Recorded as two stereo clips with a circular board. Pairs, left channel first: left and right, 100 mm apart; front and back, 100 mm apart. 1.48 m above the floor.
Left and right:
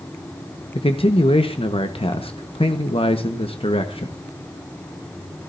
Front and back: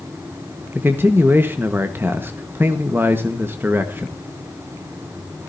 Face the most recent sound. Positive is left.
turn(degrees=115)